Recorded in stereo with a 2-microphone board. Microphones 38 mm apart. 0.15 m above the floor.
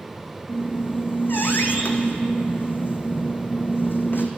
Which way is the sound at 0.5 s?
65° left (ahead or behind).